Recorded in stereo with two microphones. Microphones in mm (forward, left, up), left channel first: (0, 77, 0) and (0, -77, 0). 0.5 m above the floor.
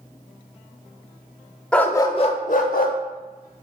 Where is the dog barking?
5° left (ahead or behind), 0.5 m; by 3.0 s 75° left (ahead or behind), 0.7 m.